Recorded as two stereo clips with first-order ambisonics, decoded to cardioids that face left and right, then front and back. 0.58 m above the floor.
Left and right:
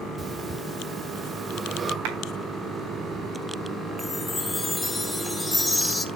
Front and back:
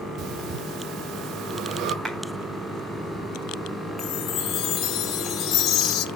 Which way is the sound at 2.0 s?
95° right.